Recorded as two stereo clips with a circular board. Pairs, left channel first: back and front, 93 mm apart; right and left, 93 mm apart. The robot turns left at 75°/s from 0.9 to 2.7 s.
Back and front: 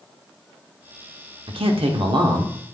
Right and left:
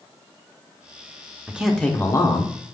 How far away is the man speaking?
About 0.7 m.